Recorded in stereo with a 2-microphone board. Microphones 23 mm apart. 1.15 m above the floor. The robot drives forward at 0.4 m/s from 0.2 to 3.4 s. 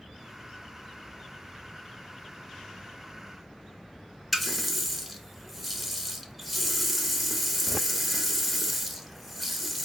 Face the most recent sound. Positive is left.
turn(degrees=-5)  # may be behind; listen again after turning